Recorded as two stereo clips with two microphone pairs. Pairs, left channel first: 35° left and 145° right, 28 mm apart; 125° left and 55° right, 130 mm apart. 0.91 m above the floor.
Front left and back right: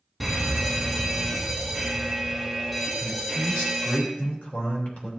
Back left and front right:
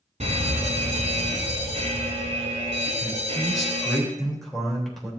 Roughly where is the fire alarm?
Ahead right.